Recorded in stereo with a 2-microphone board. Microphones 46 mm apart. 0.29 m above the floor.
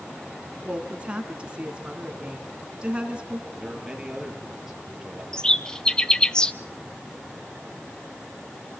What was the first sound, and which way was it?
A woman speaking, 25° right (ahead or behind).